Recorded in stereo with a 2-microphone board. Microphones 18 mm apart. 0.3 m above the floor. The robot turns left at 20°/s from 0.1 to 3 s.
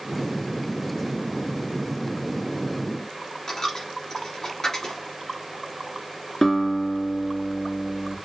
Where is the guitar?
25° left (ahead or behind), 1.9 m.